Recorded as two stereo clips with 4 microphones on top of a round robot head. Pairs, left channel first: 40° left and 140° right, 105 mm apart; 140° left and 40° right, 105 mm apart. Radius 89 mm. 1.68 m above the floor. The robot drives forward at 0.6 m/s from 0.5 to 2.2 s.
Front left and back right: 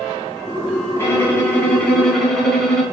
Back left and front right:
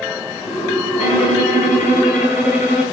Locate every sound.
1.0 s a violin: 105° left, 2.5 m; by 2.8 s 125° left, 2.5 m